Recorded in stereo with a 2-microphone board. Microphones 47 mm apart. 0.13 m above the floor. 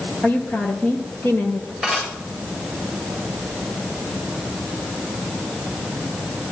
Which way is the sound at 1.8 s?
5° left (ahead or behind).